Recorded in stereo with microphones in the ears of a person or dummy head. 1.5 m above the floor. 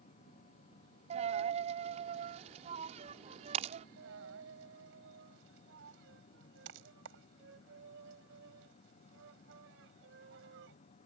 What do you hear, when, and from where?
0.0 s a machine running: 35° left (ahead or behind)
1.1 s a dropped coin: 40° right (ahead or behind)
4.0 s a dropped coin: 70° right (ahead or behind)